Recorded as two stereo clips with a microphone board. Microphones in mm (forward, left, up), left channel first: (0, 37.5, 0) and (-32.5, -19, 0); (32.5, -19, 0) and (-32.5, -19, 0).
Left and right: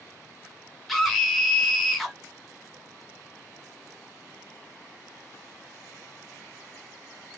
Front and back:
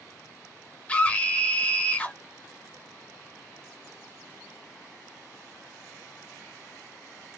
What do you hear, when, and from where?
0.9 s a scream: 25° right, 0.8 m